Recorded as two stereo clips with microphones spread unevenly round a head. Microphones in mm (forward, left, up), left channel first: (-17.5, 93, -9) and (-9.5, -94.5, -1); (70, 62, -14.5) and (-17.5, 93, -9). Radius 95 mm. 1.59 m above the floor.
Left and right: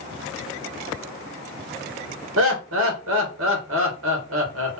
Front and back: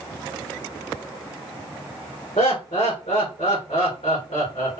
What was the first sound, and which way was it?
Laughter, 70° right.